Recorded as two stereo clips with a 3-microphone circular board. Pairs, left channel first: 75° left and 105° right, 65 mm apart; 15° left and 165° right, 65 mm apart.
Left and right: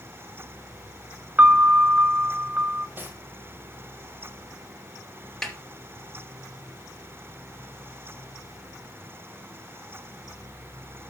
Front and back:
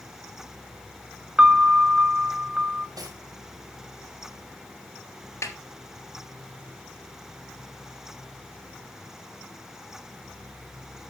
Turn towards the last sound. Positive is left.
turn(degrees=-10)